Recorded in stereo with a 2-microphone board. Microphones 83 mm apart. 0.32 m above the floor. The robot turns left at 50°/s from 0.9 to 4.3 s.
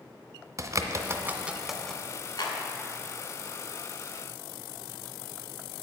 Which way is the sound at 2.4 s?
55° left (ahead or behind).